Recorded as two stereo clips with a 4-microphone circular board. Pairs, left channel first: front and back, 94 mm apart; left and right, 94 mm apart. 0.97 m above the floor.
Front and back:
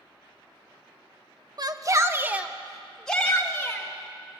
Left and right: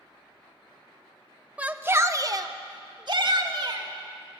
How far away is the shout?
About 1.1 m.